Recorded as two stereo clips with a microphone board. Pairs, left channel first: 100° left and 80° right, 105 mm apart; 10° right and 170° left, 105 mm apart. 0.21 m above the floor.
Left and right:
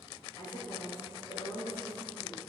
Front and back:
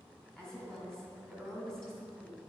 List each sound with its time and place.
0.4 s a woman speaking: 70° left, 2.5 m